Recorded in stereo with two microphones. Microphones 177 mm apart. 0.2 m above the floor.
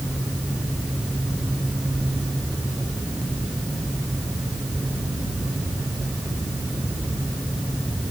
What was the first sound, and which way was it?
Only background noise.